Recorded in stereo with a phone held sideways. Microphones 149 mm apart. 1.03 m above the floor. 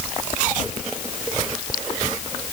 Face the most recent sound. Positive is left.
No sound to turn to.